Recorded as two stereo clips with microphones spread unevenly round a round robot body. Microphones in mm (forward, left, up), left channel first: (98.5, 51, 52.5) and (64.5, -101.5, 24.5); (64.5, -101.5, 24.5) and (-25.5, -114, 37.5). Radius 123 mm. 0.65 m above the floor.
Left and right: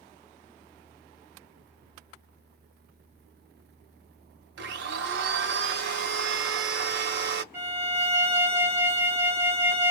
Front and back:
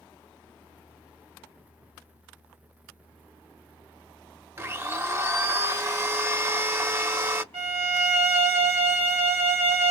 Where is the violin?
175° right, 1.3 m.